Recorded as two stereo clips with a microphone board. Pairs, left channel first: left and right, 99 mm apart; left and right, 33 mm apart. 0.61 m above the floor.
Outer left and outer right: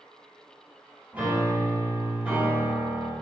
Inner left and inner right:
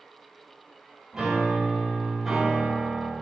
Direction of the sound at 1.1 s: 15° right (ahead or behind).